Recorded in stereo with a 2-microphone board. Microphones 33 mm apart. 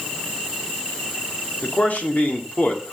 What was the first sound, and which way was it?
A man speaking, 60° left (ahead or behind).